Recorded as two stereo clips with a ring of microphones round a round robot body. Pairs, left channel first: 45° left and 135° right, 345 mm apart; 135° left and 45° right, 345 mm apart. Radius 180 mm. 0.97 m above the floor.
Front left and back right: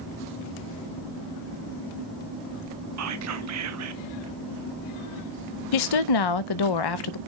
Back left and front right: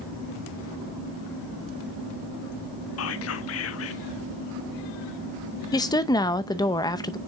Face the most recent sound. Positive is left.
turn(degrees=55)